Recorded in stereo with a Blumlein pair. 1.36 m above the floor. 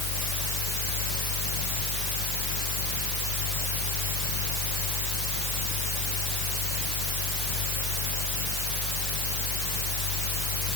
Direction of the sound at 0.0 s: 45° left.